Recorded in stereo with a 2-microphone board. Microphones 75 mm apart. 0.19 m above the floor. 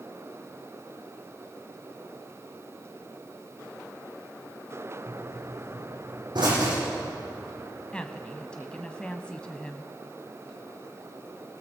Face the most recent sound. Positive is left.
turn(degrees=15)  # may be behind; listen again after turning